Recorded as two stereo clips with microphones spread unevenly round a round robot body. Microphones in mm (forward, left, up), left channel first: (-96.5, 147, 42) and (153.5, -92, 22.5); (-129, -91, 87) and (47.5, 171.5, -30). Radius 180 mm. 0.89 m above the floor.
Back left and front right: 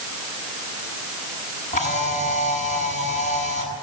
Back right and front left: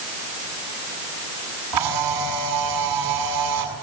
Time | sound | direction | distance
1.7 | a camera shutter | 65° left | 7.5 m